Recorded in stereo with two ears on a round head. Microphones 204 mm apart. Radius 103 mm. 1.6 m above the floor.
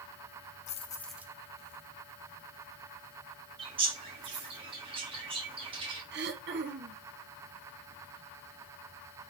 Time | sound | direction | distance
0.7 | keys jangling | 35° left (ahead or behind) | 0.7 m
3.6 | a bird | 20° right (ahead or behind) | 1.5 m
6.1 | throat clearing | 45° right (ahead or behind) | 1.0 m